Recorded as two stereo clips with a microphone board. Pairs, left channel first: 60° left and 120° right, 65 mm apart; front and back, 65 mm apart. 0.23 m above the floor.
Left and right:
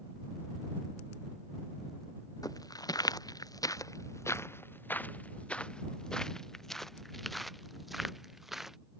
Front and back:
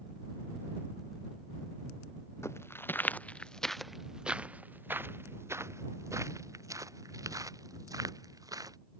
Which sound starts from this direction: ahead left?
Footsteps, at 2.4 s.